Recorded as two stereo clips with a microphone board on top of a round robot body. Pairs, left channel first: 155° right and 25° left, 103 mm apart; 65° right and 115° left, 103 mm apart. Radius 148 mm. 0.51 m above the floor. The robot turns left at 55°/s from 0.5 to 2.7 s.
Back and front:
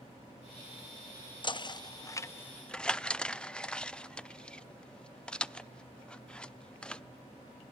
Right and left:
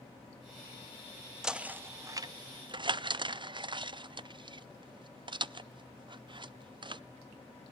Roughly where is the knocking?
Behind.